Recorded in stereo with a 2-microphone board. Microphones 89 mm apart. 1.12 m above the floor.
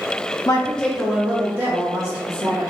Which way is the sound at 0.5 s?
40° left (ahead or behind).